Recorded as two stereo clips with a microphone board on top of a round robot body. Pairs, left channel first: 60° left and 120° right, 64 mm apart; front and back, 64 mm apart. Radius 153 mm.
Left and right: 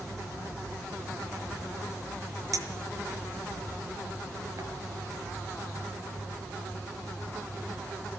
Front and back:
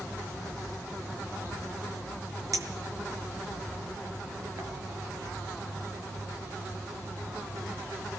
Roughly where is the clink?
Behind right.